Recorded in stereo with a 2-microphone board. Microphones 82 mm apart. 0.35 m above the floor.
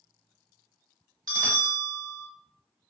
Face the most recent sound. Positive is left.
turn(degrees=-50)  # may be behind; listen again after turning